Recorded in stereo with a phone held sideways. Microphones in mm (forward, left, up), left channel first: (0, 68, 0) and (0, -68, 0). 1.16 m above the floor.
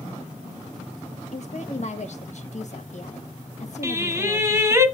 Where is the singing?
20° right (ahead or behind), 1.8 m.